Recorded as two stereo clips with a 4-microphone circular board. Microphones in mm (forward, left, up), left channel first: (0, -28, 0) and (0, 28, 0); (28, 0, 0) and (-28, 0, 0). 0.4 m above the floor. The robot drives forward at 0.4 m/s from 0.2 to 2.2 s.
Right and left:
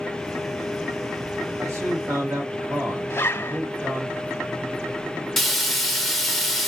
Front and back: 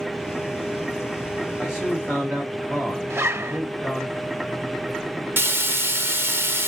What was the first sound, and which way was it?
A man speaking, 100° left.